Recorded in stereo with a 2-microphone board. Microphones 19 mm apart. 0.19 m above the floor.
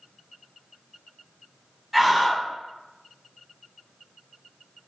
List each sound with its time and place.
1.9 s a scream: 5° right (ahead or behind), 1.1 m